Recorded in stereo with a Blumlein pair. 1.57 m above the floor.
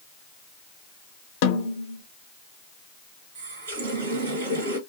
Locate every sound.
1.4 s a snare drum: 50° left, 0.8 m
3.4 s a running tap: 60° right, 1.8 m